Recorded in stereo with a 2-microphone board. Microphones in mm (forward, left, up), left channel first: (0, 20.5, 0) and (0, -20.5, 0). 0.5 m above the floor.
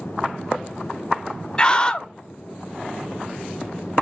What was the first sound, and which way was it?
A scream, 20° left (ahead or behind).